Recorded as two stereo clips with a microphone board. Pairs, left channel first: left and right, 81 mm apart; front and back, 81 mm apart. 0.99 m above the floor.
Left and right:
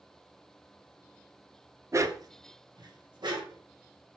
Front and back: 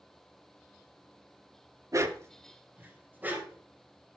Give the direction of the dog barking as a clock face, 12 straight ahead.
5 o'clock.